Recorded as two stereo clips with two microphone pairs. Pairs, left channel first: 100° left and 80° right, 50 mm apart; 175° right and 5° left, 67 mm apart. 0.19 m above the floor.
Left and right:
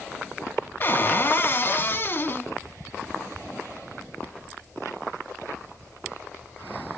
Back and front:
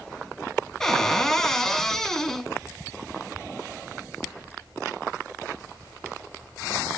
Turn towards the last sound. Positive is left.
turn(degrees=105)